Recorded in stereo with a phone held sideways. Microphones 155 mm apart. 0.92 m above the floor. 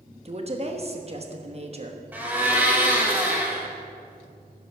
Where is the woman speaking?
40° right (ahead or behind), 1.1 m.